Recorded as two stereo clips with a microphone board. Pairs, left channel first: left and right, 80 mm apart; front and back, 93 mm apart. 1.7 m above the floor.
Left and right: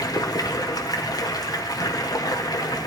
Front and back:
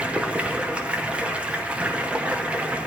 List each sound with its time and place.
0.0 s running water: 105° left, 1.1 m